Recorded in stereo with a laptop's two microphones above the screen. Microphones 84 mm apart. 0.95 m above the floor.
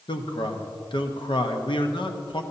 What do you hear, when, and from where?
0.1 s a man speaking: 65° left (ahead or behind), 1.0 m